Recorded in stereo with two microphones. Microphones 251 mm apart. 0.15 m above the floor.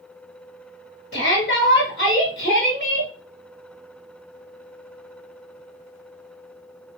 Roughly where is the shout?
Left.